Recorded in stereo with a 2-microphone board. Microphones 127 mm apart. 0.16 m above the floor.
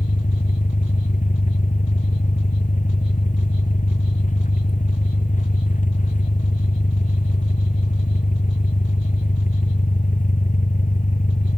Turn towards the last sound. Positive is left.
turn(degrees=85)